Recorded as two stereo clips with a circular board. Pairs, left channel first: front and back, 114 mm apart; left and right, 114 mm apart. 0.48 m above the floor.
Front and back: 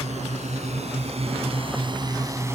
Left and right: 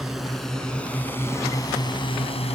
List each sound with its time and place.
0.0 s a drone: 175° right; by 2.6 s 110° left